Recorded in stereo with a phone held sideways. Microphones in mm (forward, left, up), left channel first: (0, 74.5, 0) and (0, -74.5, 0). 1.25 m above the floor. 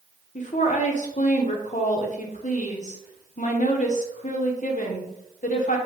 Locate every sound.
0.3 s a woman speaking: 55° left (ahead or behind), 0.7 m